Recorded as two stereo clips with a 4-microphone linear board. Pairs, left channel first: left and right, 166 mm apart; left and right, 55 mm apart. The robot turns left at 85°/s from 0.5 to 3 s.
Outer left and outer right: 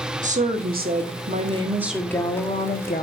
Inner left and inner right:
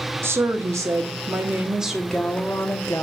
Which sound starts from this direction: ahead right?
A woman speaking, at 0.2 s.